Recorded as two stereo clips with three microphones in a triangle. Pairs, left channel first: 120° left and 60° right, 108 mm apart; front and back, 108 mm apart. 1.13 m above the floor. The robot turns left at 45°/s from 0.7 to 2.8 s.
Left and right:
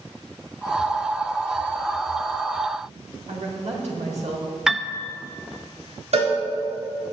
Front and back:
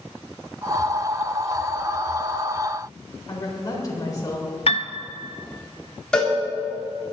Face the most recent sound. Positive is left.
turn(degrees=-80)